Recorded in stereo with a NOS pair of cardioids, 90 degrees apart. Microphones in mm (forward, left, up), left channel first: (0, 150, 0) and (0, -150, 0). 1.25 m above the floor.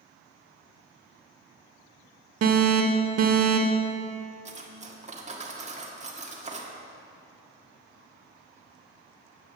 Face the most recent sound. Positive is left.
turn(degrees=-25)